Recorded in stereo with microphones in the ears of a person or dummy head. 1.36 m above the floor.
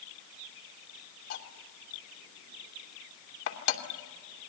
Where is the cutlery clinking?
75° left (ahead or behind), 2.5 m.